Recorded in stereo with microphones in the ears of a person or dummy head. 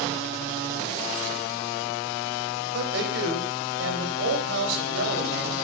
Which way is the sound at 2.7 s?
80° right.